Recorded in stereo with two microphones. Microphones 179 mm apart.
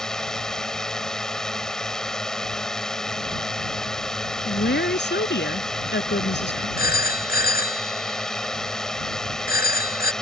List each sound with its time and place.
0.0 s a drone: 5° left (ahead or behind)
4.5 s a woman speaking: 85° left
6.8 s a phone ringing: 60° left (ahead or behind)